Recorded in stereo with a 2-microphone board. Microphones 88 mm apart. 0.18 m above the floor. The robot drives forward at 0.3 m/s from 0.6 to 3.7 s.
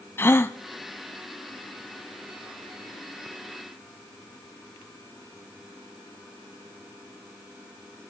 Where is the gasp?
30° left (ahead or behind), 0.6 m.